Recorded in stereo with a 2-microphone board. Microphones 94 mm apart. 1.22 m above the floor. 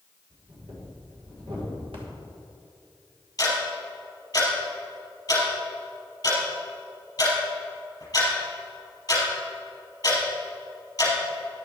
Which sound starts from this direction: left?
Ticking, at 3.4 s.